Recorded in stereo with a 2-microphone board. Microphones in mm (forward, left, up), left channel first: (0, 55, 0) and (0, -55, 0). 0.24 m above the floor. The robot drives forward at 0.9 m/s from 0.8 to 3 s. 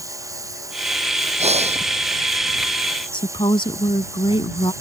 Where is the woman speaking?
50° left (ahead or behind).